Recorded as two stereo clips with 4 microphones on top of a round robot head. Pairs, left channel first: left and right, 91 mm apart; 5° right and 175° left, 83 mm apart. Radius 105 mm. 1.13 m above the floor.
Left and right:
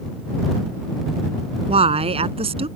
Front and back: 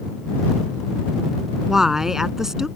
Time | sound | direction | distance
1.7 | a woman speaking | 100° right | ?